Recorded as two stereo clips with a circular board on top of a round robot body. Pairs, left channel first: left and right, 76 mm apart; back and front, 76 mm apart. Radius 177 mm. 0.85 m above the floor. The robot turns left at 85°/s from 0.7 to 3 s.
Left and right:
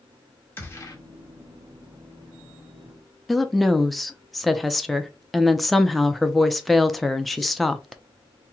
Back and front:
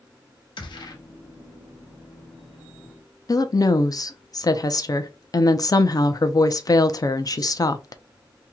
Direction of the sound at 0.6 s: 150° left.